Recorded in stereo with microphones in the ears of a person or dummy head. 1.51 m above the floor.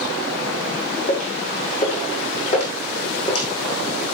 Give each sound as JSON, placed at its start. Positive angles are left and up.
{"t": 1.1, "sound": "footsteps", "side_deg": 40, "distance_m": 5.5}